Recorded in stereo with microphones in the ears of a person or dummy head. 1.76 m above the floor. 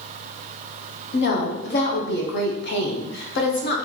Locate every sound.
1.1 s a woman speaking: 70° left (ahead or behind), 0.9 m